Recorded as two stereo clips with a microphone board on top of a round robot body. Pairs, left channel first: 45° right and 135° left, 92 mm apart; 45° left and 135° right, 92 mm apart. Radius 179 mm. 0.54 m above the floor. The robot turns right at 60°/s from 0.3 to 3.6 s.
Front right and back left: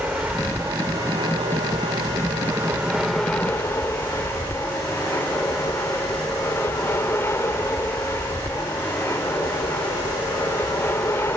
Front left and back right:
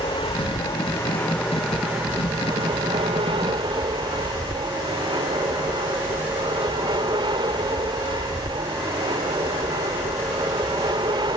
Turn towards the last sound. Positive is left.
turn(degrees=-105)